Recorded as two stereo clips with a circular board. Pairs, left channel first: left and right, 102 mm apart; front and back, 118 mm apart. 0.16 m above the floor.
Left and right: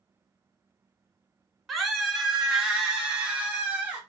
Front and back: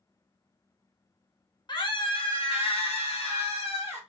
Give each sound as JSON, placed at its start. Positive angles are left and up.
{"t": 1.7, "sound": "a scream", "azimuth_deg": 0, "distance_m": 1.3}